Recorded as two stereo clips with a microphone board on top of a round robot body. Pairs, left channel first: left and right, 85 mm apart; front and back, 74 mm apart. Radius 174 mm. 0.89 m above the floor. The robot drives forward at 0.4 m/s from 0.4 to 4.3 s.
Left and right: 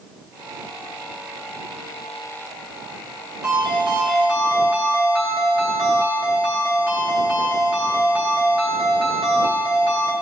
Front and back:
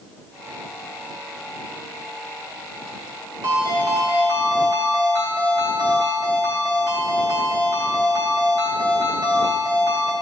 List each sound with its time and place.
3.4 s a ringtone: 170° right, 2.5 m; by 10.1 s 175° right, 3 m